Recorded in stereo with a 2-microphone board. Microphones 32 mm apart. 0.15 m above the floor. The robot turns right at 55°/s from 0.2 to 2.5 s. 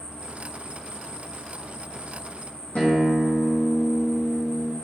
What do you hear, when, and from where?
0.0 s an insect: 25° left, 1.1 m; by 4.8 s 150° left, 1.1 m
2.8 s a guitar: 50° left (ahead or behind), 1.1 m